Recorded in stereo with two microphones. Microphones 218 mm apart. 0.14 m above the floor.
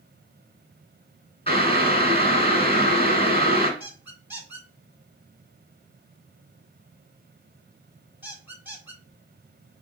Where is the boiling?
25° left (ahead or behind), 1.7 m.